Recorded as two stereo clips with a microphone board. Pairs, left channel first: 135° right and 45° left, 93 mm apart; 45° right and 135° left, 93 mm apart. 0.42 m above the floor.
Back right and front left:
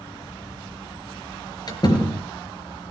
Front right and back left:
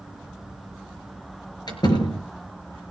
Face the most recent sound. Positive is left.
turn(degrees=-90)